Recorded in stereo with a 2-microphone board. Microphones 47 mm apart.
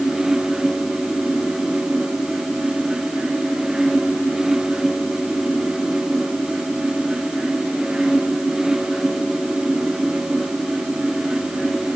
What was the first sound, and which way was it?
Only background noise.